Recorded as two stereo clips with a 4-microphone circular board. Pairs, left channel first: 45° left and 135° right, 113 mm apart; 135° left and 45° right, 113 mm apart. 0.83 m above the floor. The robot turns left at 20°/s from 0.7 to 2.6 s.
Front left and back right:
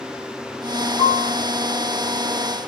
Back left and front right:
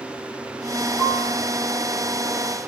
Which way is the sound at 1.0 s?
75° left.